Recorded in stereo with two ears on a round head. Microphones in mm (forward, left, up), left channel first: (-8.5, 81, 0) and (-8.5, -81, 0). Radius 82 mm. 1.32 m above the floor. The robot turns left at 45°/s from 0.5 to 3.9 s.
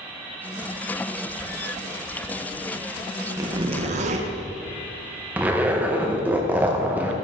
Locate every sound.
3.4 s a zipper: 15° right (ahead or behind), 0.6 m; by 4.3 s 40° right (ahead or behind), 0.6 m
5.4 s a zipper: 10° right (ahead or behind), 0.6 m